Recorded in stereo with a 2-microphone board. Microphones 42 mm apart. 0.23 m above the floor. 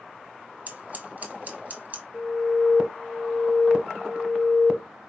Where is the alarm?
Centre (ahead or behind), 1.0 m.